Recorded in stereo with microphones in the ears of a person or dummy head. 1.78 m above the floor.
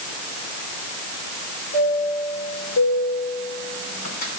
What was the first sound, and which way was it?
A chime, 55° left (ahead or behind).